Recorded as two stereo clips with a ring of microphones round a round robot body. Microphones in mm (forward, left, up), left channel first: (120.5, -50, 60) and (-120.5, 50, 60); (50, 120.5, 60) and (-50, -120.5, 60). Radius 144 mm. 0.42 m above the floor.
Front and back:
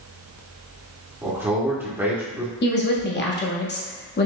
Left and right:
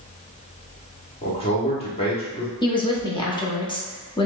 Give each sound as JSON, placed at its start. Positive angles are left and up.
{"t": 1.2, "sound": "a man speaking", "azimuth_deg": 90, "distance_m": 1.4}
{"t": 2.6, "sound": "a woman speaking", "azimuth_deg": 0, "distance_m": 1.1}